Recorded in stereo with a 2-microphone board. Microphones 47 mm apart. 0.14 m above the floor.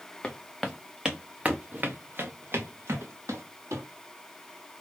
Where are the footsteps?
20° left (ahead or behind), 0.9 m; by 3.8 s 75° right (ahead or behind), 1.6 m.